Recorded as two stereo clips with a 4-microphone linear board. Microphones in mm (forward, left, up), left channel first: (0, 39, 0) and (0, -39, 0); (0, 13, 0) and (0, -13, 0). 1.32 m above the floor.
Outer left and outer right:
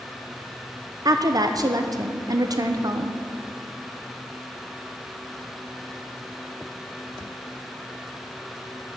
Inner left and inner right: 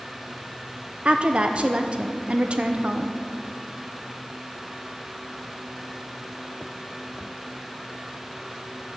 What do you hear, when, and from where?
1.1 s a woman speaking: 50° right (ahead or behind), 0.5 m